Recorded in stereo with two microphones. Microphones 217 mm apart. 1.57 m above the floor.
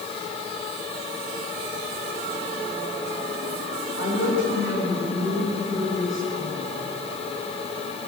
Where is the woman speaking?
65° left (ahead or behind), 8.5 m.